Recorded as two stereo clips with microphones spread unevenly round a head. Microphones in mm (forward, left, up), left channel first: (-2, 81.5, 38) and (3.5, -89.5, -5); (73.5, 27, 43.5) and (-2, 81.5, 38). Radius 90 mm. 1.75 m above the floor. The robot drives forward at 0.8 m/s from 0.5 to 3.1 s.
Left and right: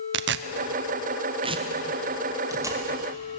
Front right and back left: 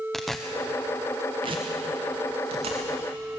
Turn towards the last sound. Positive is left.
turn(degrees=-170)